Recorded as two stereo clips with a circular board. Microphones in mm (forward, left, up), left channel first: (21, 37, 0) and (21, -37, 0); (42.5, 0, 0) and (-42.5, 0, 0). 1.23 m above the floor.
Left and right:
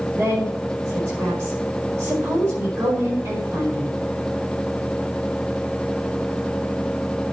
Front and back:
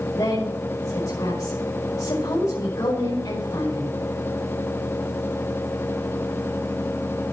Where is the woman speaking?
25° right, 5 m.